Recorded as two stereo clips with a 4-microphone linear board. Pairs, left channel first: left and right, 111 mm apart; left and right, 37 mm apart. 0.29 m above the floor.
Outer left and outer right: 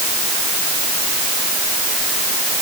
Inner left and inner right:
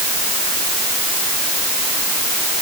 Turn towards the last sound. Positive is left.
No sound to turn to.